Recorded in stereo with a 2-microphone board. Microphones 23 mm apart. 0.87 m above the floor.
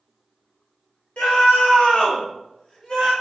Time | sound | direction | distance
1.2 | a scream | 70° left (ahead or behind) | 1.4 m